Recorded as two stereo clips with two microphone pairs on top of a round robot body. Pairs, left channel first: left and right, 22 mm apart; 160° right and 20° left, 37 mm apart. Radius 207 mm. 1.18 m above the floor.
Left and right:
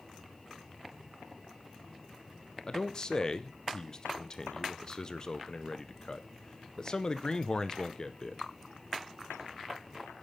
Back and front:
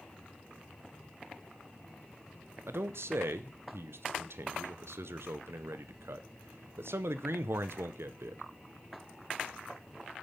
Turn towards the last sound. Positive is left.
turn(degrees=30)